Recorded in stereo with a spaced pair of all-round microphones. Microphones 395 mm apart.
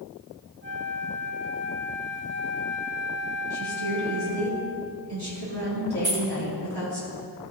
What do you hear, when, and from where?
0.6 s a flute: 30° right (ahead or behind), 0.9 m
3.5 s a woman speaking: 75° right (ahead or behind), 3 m
6.0 s keys jangling: 70° right (ahead or behind), 1.5 m